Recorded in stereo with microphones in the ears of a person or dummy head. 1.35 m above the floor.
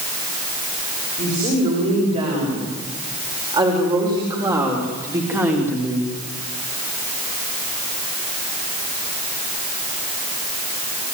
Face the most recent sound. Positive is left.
turn(degrees=-5)  # may be behind; listen again after turning